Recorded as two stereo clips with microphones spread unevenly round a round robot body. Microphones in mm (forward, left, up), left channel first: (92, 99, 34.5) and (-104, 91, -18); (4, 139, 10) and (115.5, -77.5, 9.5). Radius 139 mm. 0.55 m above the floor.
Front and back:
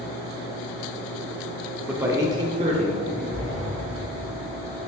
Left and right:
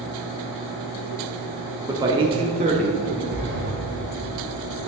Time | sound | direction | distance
1.9 | a man speaking | 125° right | 0.8 m
3.3 | a sliding door | 85° right | 2.0 m